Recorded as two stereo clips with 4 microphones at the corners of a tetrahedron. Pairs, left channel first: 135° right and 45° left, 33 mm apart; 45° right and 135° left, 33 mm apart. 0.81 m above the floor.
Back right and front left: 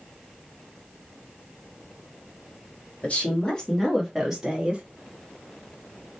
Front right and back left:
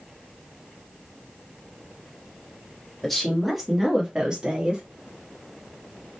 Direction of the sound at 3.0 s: 125° right.